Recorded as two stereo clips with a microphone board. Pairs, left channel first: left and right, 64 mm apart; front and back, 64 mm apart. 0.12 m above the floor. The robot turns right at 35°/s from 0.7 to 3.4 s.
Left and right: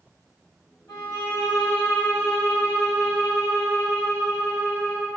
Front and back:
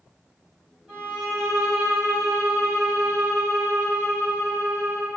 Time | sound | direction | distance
0.9 | a violin | 95° left | 2.0 m